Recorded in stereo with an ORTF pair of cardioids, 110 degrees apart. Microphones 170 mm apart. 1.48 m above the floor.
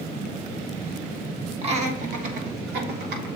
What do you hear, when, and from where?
1.6 s laughter: 35° right, 2.5 m; by 3.3 s 80° right, 4 m